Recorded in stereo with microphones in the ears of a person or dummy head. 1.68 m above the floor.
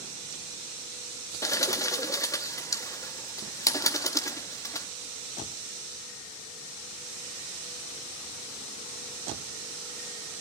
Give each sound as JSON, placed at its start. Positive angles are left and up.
{"t": 1.4, "sound": "a bird", "side_deg": 15, "distance_m": 0.5}